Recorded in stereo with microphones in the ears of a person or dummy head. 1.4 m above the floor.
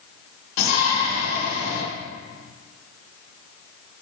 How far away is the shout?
About 2.5 m.